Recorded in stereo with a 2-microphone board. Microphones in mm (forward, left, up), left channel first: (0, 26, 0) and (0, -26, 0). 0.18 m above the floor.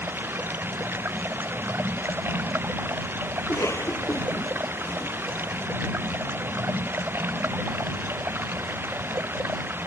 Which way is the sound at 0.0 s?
45° right (ahead or behind).